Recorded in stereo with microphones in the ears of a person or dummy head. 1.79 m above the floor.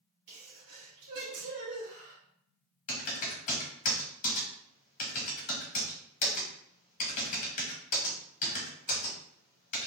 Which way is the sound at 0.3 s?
55° right (ahead or behind).